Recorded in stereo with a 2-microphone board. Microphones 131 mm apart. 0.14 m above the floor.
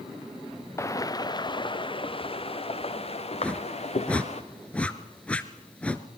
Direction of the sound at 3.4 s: 10° left (ahead or behind).